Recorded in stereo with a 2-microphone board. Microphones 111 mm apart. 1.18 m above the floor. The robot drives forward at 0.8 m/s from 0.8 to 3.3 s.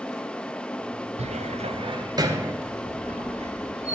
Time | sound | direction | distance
1.2 | a cupboard door | 65° right (ahead or behind) | 0.5 m
2.6 | a squeak | 80° right | 1.4 m